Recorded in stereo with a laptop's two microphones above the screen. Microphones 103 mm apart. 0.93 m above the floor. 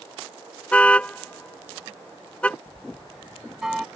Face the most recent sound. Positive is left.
turn(degrees=-5)  # may be behind; listen again after turning